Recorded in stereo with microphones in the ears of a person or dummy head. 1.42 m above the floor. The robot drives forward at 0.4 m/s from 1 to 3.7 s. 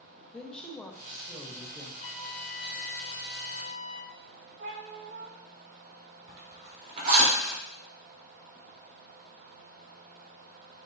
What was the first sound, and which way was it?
A woman speaking, 5° left (ahead or behind).